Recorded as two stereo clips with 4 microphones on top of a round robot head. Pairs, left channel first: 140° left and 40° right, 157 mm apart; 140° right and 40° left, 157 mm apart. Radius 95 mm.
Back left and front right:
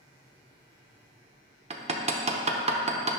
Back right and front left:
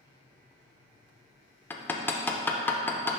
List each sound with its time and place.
1.7 s hammering: 65° right, 0.8 m